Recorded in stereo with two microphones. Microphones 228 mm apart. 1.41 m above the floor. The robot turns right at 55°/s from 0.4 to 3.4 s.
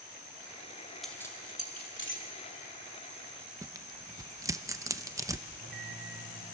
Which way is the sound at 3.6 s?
15° right (ahead or behind).